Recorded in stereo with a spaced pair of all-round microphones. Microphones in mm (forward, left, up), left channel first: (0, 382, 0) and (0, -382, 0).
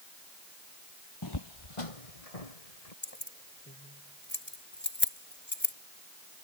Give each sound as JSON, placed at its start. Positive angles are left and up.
{"t": 1.2, "sound": "footsteps", "side_deg": 25}
{"t": 3.0, "sound": "keys jangling", "side_deg": 15}